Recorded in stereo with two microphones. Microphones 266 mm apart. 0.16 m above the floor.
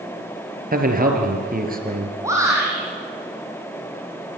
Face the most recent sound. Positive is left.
turn(degrees=-10)  # may be behind; listen again after turning